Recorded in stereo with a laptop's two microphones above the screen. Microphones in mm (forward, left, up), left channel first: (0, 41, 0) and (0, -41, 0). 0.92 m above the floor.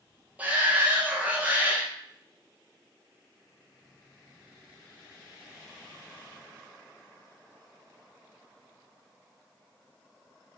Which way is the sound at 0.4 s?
20° right (ahead or behind).